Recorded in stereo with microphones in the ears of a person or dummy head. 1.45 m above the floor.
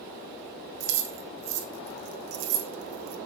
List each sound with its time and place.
0.8 s keys jangling: 55° right (ahead or behind), 1.3 m